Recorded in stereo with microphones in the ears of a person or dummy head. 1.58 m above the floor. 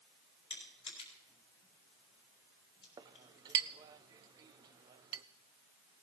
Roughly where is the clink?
Right.